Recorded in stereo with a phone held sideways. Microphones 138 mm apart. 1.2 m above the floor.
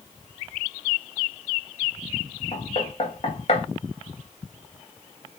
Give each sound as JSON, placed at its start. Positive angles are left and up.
{"t": 2.5, "sound": "knocking", "side_deg": 45, "distance_m": 1.5}